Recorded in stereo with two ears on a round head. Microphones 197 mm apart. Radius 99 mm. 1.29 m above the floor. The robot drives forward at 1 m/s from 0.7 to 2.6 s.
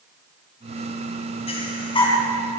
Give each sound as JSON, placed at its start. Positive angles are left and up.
{"t": 1.5, "sound": "breathing", "side_deg": 30, "distance_m": 2.5}